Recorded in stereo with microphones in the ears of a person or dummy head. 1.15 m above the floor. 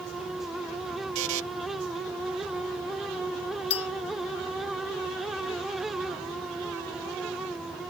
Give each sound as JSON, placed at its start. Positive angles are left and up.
{"t": 1.1, "sound": "a buzzer", "side_deg": -70}
{"t": 3.7, "sound": "a clink", "side_deg": 30}